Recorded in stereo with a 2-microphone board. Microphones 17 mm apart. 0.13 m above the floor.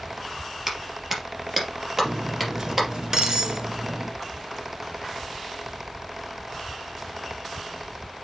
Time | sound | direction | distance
0.7 | a clap | 25° right (ahead or behind) | 3 m
2.0 | cutlery clinking | 40° right (ahead or behind) | 1.0 m